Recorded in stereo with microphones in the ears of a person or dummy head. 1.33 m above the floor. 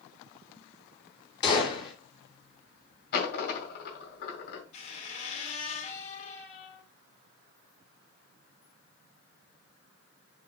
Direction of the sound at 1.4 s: 25° left (ahead or behind).